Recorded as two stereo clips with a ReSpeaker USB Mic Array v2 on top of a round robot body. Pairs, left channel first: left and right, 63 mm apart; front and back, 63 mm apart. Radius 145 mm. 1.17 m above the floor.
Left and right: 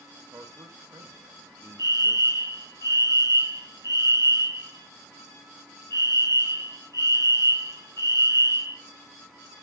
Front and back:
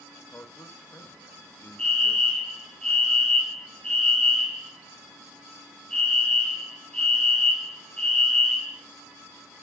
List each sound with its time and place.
0.3 s a man speaking: 55° right, 1.6 m
1.8 s a fire alarm: 70° left, 4.5 m